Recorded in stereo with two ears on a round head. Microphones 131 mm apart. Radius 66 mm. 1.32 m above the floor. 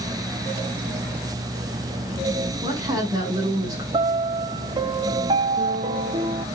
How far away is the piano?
About 0.8 m.